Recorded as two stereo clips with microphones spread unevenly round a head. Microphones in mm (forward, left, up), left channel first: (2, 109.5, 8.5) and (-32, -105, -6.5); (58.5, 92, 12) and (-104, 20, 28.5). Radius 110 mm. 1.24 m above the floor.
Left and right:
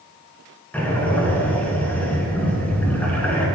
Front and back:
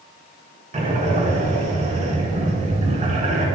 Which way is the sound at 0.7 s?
160° left.